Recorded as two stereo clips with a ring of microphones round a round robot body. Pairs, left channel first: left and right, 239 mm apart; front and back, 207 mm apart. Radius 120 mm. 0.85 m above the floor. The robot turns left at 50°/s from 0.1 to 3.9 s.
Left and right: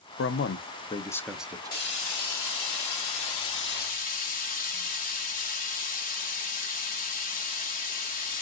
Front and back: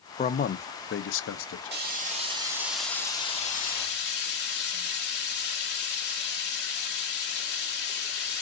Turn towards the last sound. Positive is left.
turn(degrees=35)